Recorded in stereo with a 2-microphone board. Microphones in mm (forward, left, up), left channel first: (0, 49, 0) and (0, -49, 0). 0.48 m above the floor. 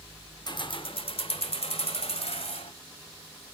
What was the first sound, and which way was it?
Keys jangling, 45° left (ahead or behind).